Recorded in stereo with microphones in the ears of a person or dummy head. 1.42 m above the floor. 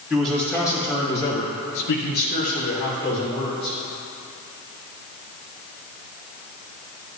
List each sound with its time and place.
0.1 s a man speaking: 5° right (ahead or behind), 2.5 m; by 3.8 s 30° left (ahead or behind), 3.5 m